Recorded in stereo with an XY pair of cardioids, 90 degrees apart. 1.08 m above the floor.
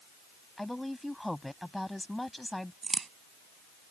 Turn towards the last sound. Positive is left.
turn(degrees=-35)